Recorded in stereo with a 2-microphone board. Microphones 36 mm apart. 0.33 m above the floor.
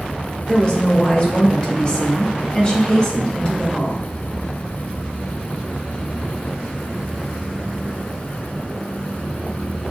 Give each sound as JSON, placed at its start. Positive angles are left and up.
{"t": 0.5, "sound": "a woman speaking", "side_deg": 25, "distance_m": 0.9}